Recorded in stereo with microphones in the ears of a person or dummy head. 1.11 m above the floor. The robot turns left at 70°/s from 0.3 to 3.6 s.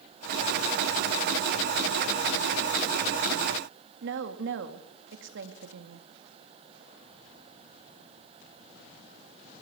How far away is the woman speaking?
About 2.0 m.